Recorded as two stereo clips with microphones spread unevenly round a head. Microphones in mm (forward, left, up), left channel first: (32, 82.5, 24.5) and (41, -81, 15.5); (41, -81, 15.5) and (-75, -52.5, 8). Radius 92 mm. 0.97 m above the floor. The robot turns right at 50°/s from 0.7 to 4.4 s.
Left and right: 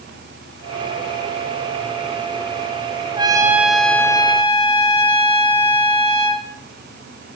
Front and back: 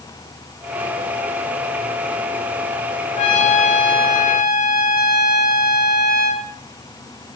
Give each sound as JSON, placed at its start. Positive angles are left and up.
{"t": 3.2, "sound": "a trumpet", "azimuth_deg": -25, "distance_m": 1.4}